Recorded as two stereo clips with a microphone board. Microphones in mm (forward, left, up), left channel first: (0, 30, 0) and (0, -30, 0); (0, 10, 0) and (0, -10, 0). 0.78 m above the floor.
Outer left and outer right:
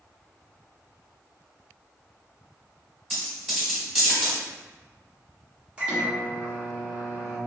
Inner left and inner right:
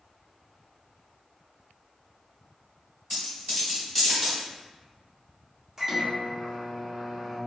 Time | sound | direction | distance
3.1 | a dropped coin | centre (ahead or behind) | 1.3 m
5.8 | a microwave | 20° right (ahead or behind) | 0.9 m